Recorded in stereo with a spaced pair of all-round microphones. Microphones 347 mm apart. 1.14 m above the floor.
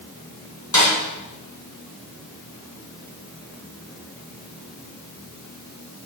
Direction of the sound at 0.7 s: 55° left (ahead or behind).